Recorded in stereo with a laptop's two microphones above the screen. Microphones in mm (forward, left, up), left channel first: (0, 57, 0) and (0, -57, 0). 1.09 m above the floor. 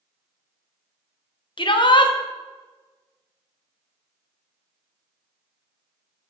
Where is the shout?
50° left (ahead or behind), 0.8 m.